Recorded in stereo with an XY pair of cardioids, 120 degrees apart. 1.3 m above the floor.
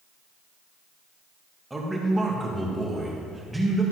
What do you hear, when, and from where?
1.7 s a man speaking: 5° right, 1.8 m